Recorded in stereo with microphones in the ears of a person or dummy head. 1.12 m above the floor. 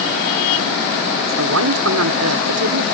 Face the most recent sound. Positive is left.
turn(degrees=-85)